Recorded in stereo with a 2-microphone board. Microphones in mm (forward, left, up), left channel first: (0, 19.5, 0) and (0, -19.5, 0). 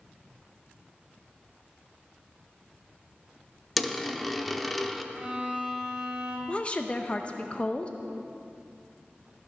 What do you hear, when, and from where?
3.8 s a dropped coin: 5° left (ahead or behind), 0.6 m
5.1 s a violin: 25° right (ahead or behind), 2 m
6.5 s a woman speaking: 30° left (ahead or behind), 0.6 m